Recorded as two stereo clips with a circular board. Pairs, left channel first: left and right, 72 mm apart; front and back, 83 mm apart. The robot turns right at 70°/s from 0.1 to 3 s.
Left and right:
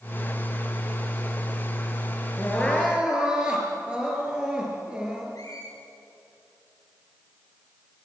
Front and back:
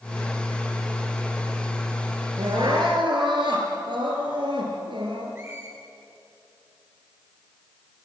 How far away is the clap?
No clap in this recording.